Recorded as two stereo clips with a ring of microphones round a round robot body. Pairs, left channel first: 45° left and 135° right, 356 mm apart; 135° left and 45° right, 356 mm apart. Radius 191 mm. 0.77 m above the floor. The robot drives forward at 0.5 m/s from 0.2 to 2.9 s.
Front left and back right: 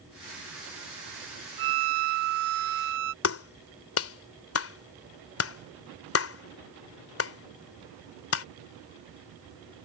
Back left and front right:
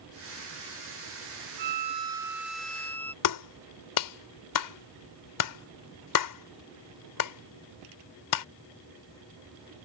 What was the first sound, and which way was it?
A violin, 105° right.